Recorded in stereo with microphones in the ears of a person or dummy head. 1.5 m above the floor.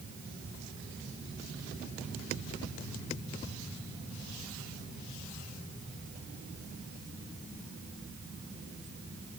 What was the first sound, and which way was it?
Only background noise.